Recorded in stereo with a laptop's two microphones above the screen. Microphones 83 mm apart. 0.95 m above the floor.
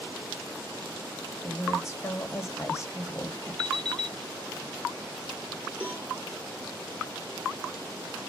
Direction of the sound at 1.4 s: 35° left (ahead or behind).